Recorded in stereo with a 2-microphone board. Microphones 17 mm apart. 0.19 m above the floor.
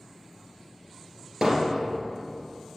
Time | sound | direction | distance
1.4 | hammering | 35° right (ahead or behind) | 2.5 m